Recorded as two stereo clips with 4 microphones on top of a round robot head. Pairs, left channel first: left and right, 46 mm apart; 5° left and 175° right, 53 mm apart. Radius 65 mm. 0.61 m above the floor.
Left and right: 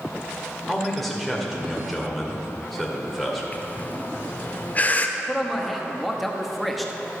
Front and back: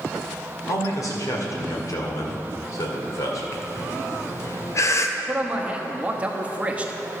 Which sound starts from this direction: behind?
A man speaking, at 5.2 s.